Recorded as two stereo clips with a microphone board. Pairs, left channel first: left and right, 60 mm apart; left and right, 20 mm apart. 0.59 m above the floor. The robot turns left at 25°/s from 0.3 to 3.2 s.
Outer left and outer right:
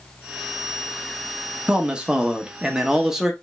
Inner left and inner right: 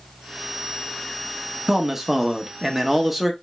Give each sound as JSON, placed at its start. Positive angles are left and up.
{"t": 1.7, "sound": "a man speaking", "side_deg": -15, "distance_m": 0.8}